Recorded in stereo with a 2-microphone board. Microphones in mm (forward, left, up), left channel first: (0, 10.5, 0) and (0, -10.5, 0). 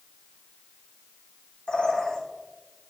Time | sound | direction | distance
1.7 | a bird | 65° left (ahead or behind) | 3 m